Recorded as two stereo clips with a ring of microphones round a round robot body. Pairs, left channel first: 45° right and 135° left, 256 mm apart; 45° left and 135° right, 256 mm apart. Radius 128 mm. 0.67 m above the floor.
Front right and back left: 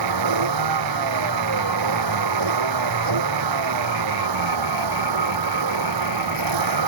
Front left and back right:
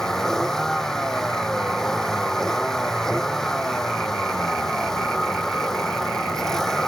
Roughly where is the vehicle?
Behind left.